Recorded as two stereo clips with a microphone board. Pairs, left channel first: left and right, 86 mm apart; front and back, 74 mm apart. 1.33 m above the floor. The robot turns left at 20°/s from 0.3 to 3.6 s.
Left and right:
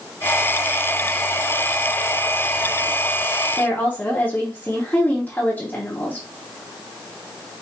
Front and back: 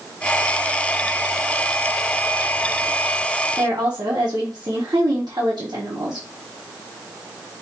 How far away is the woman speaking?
About 1.0 m.